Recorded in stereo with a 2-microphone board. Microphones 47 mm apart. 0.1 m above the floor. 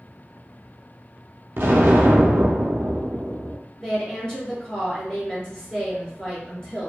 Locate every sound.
1.6 s an explosion: 60° right (ahead or behind), 0.6 m
3.8 s a woman speaking: 20° left (ahead or behind), 1.2 m